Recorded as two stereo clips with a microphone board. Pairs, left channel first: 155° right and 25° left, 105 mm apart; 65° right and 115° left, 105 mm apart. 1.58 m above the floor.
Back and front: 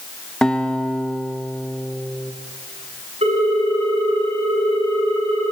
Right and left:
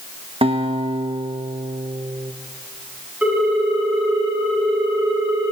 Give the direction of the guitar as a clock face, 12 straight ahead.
8 o'clock.